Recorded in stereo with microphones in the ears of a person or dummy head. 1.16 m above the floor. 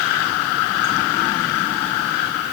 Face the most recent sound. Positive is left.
No sound to turn to.